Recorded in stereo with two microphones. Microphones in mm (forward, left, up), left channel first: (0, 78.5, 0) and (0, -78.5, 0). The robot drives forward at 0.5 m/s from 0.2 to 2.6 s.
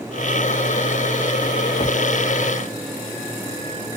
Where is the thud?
35° left (ahead or behind).